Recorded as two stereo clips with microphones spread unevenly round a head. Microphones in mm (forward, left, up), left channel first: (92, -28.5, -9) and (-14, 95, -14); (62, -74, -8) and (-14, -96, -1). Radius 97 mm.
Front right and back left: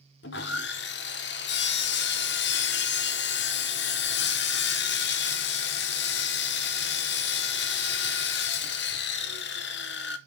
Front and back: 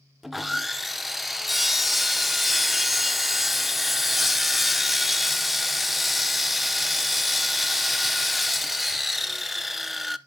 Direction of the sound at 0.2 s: 75° right.